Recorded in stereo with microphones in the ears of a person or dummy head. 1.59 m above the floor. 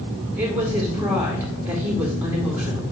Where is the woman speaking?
15° right (ahead or behind), 2 m.